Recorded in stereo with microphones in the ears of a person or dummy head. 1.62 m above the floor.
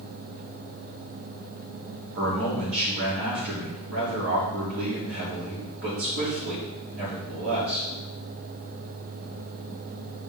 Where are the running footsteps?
No running footsteps in this recording.